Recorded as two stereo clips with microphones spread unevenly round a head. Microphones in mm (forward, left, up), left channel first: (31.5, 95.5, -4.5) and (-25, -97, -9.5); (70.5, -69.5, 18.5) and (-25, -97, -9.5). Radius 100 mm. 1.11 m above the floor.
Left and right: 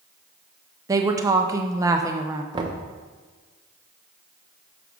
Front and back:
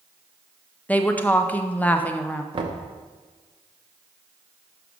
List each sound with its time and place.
0.9 s a woman speaking: 75° right, 0.6 m
2.5 s knocking: 175° right, 0.8 m